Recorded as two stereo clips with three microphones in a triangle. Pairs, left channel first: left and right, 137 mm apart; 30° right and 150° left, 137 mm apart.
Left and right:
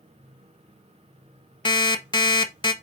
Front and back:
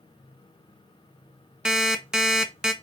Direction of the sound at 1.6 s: 70° left.